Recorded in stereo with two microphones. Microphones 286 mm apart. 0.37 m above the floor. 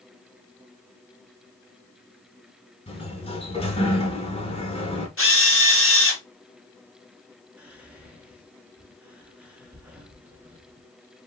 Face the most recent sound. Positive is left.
turn(degrees=-5)  # may be behind; listen again after turning